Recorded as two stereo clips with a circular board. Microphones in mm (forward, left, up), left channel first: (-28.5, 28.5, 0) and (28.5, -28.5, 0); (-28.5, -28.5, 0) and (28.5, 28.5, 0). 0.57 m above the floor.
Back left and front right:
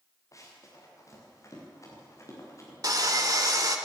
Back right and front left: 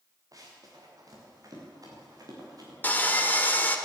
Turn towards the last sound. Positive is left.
turn(degrees=-70)